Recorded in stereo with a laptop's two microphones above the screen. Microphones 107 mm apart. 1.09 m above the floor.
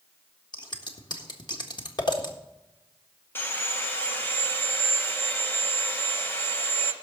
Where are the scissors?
45° left (ahead or behind), 1.5 m.